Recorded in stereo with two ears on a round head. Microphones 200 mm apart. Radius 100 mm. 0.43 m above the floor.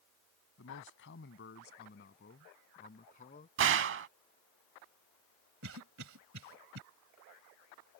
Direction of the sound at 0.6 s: 60° left (ahead or behind).